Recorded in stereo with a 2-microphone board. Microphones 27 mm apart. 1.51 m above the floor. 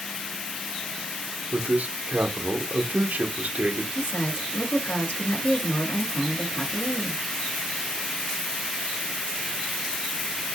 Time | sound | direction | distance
1.5 | a man speaking | 75° right (ahead or behind) | 1.0 m
4.0 | a woman speaking | 85° left | 2.5 m